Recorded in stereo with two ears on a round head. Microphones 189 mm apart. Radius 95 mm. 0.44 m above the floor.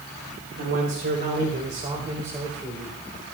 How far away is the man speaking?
About 3 m.